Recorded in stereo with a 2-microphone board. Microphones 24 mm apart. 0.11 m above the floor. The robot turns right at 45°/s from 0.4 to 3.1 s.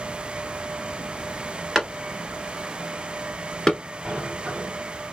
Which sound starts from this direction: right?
A sliding door, at 4.0 s.